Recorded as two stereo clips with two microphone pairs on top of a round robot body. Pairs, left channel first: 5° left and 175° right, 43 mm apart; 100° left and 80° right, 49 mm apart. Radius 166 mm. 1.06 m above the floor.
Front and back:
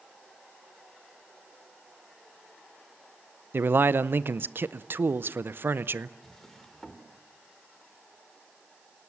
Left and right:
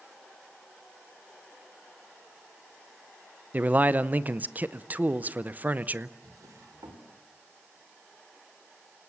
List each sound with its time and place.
3.5 s a man speaking: 140° right, 0.7 m
6.2 s a drawer: 75° right, 2.0 m